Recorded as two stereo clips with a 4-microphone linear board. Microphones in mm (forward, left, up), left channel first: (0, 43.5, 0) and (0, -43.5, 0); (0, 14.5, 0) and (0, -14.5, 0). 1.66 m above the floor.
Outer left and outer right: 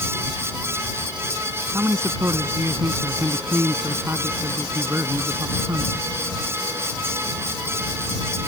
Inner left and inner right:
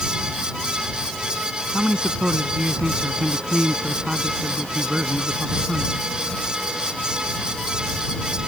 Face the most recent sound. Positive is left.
turn(degrees=-30)  # may be behind; listen again after turning